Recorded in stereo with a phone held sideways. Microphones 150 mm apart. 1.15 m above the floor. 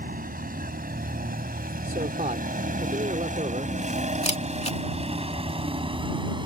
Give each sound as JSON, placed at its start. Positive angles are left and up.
{"t": 0.0, "sound": "a vehicle", "side_deg": -75}
{"t": 1.8, "sound": "a man speaking", "side_deg": -55}
{"t": 4.2, "sound": "a camera shutter", "side_deg": 45}